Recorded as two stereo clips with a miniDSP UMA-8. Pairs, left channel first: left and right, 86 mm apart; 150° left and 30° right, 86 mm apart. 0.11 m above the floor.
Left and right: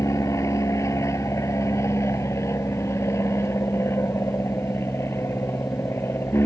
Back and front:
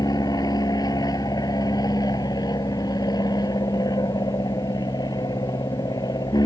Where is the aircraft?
130° left; by 6.5 s 145° left.